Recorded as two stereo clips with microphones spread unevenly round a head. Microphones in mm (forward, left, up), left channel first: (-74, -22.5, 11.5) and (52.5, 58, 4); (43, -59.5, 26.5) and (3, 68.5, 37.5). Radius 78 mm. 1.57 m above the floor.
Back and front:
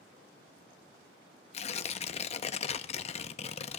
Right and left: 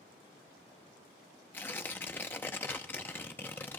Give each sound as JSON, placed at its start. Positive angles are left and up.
{"t": 1.5, "sound": "tearing paper", "azimuth_deg": -150, "distance_m": 0.6}